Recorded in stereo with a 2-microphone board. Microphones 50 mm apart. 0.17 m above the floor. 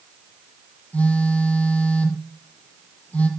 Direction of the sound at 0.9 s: 25° left (ahead or behind).